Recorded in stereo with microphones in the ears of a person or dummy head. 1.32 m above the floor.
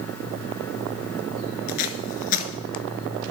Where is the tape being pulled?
45° left (ahead or behind), 1.4 m.